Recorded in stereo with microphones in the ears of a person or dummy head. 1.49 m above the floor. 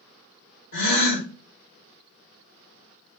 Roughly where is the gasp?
Left.